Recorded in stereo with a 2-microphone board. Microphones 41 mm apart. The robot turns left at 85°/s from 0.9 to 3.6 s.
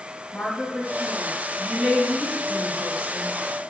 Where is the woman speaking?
20° left (ahead or behind), 1.2 m; by 3.3 s 10° right (ahead or behind), 1.2 m.